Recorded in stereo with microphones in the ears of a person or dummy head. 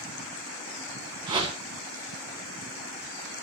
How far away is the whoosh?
About 1.5 m.